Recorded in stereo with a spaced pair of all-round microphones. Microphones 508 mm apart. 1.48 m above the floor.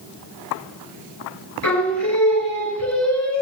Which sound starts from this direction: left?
Singing, at 1.6 s.